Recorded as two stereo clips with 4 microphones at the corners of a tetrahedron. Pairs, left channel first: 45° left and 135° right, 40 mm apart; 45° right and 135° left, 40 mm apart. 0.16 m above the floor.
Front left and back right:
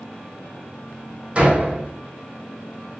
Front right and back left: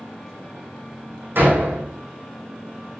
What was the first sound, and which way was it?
A door slam, 165° left.